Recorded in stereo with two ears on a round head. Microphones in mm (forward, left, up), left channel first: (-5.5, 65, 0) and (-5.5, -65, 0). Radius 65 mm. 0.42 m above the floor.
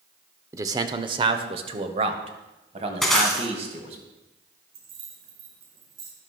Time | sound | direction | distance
0.5 | a man speaking | 20° right (ahead or behind) | 0.8 m
3.0 | breaking glass | centre (ahead or behind) | 2.5 m
4.7 | keys jangling | 80° right | 4.5 m